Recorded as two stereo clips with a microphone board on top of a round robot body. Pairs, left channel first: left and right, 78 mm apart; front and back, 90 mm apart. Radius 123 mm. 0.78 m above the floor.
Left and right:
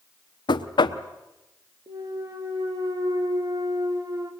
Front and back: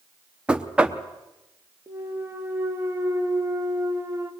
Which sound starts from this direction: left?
Knocking, at 0.5 s.